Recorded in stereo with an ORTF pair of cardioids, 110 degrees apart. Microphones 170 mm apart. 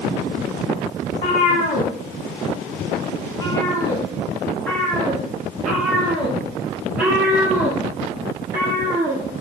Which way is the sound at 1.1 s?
60° left.